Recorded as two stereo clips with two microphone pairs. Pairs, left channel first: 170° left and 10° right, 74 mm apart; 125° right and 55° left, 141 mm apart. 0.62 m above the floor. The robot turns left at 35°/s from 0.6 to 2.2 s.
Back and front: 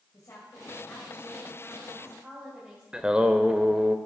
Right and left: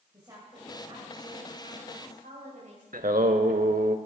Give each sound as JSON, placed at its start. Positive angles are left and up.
{"t": 0.1, "sound": "a woman speaking", "azimuth_deg": 120, "distance_m": 2.5}
{"t": 2.9, "sound": "singing", "azimuth_deg": 65, "distance_m": 0.7}